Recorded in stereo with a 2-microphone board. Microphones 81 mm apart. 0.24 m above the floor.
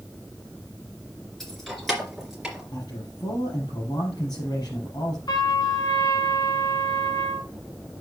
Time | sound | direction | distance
1.4 | keys jangling | 5° left (ahead or behind) | 2.5 m
2.7 | a man speaking | 60° left (ahead or behind) | 5 m
5.3 | a trumpet | 60° left (ahead or behind) | 1.4 m